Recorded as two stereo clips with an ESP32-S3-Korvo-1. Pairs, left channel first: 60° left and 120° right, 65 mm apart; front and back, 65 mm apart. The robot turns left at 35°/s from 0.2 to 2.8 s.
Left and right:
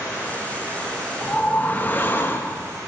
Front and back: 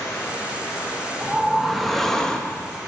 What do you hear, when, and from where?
0.0 s running water: straight ahead, 2.5 m; by 2.9 s 90° right, 2.5 m
1.2 s a whoosh: 110° left, 0.5 m; by 2.7 s 60° left, 0.5 m